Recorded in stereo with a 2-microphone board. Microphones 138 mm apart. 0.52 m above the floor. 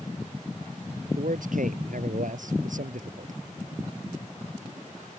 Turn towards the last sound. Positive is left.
turn(degrees=-70)  # may be behind; listen again after turning